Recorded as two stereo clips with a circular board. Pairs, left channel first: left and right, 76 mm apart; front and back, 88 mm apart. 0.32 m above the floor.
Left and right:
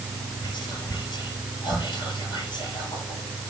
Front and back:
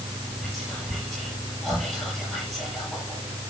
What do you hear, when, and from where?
0.4 s whispering: 85° left, 6.5 m